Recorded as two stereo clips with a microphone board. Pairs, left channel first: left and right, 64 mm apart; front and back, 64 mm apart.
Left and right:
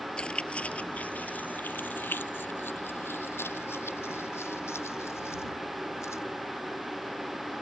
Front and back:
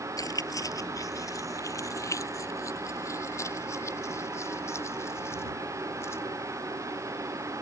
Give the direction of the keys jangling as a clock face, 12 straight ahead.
11 o'clock.